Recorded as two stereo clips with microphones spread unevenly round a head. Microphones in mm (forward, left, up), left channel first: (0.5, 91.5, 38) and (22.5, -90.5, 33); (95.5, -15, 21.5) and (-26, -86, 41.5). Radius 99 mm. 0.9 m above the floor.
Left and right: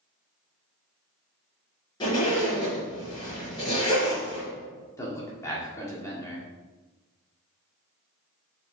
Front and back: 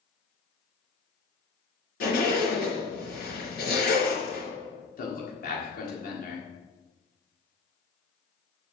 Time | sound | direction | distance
2.0 | a zipper | 30° left | 4 m
5.0 | a man speaking | 20° left | 1.8 m